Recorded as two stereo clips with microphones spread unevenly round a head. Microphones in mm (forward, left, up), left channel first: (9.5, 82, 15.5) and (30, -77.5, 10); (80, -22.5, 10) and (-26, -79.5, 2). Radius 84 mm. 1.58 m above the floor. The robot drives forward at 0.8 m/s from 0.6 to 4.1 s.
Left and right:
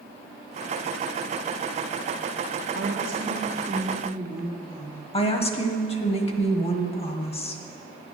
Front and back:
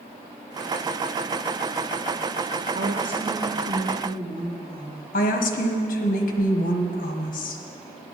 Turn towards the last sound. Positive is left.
turn(degrees=45)